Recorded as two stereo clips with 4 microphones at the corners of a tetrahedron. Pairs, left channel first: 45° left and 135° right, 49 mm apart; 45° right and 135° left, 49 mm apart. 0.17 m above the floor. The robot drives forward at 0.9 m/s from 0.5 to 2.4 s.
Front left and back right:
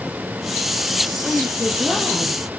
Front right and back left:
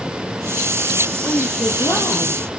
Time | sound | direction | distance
1.2 | a woman speaking | 50° right | 5 m